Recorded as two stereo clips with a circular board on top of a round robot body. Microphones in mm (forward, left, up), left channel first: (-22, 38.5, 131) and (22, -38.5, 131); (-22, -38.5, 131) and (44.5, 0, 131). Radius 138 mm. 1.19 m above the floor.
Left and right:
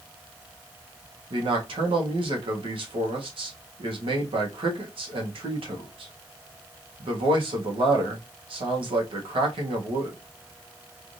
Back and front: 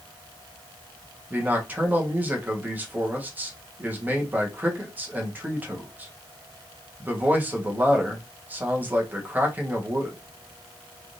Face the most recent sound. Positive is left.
turn(degrees=-35)